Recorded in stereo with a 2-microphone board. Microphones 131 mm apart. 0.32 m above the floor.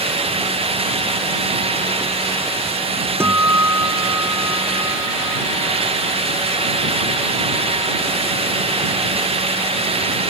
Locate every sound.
3.2 s a guitar: 20° right (ahead or behind)